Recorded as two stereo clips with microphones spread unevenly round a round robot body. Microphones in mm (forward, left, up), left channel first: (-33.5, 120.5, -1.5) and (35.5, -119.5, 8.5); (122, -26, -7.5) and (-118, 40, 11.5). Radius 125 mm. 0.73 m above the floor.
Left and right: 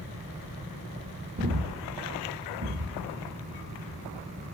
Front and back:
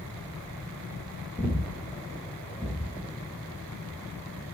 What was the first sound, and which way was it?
Breathing, 120° right.